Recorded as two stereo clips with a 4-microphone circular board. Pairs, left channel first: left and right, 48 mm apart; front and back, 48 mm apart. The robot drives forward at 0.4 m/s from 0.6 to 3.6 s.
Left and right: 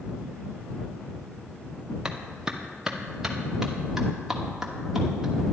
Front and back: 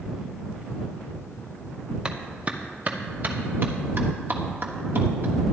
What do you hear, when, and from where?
2.0 s a clap: 140° right, 0.9 m; by 5.3 s 165° right, 1.2 m